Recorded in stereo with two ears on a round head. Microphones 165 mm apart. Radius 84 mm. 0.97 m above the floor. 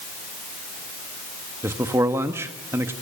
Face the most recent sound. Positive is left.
turn(degrees=-15)  # may be behind; listen again after turning